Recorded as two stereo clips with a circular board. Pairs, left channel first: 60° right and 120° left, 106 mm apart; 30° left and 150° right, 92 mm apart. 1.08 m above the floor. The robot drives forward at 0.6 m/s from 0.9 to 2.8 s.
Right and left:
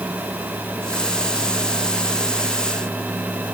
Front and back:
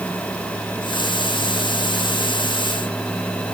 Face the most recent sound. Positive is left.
No sound to turn to.